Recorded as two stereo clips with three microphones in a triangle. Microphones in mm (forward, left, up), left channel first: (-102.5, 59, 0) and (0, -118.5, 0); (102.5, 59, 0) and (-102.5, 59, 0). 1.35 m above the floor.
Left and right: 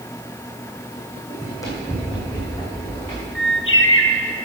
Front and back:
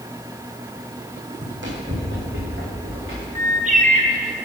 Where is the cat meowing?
No cat meowing in this recording.